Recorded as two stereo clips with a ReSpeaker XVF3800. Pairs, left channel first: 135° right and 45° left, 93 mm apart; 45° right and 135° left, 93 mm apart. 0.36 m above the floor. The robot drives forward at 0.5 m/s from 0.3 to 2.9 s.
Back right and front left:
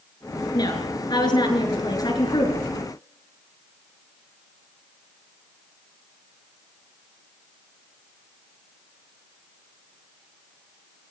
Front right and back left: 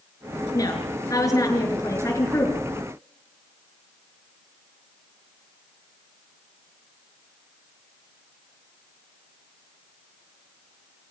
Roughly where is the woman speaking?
Right.